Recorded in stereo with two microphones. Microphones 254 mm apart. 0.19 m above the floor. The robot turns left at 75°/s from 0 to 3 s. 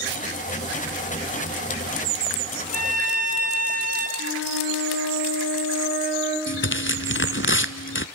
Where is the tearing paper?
50° left (ahead or behind), 0.7 m.